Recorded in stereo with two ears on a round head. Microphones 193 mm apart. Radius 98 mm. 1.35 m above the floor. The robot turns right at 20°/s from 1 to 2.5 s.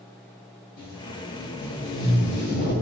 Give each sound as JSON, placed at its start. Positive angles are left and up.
{"t": 0.8, "sound": "tape being pulled", "azimuth_deg": 95, "distance_m": 1.2}